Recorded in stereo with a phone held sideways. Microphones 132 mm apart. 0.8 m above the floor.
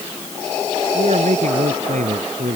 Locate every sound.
0.9 s a man speaking: 70° right (ahead or behind)